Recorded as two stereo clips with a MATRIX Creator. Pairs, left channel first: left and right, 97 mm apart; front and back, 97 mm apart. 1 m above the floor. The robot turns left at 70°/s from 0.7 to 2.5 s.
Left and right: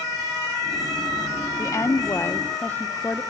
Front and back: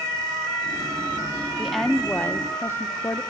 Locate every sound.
1.6 s a woman speaking: 100° left, 0.7 m; by 3.2 s 35° left, 0.7 m